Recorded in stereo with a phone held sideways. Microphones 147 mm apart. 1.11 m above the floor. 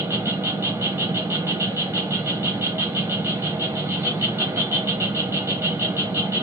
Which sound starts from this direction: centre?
An insect, at 0.0 s.